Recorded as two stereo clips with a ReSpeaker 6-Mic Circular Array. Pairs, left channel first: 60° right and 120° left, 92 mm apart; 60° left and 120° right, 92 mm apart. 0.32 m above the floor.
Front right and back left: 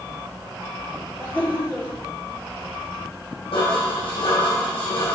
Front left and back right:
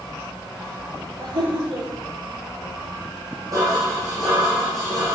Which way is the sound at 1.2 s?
130° right.